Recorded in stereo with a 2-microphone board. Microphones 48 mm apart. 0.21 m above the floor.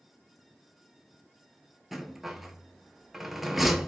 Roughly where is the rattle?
Centre.